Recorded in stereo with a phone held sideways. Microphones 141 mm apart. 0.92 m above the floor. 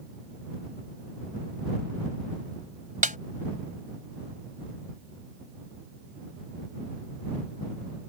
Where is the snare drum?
70° right (ahead or behind).